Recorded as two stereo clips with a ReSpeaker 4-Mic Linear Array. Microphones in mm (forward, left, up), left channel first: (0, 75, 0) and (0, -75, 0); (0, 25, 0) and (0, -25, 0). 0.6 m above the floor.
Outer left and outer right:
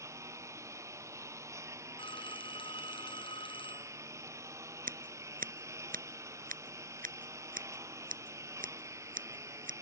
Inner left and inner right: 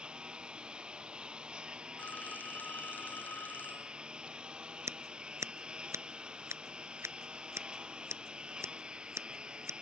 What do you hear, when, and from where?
0.0 s a lawn mower: 20° right (ahead or behind)
2.0 s a phone ringing: 35° left (ahead or behind)
4.9 s scissors: 70° right (ahead or behind)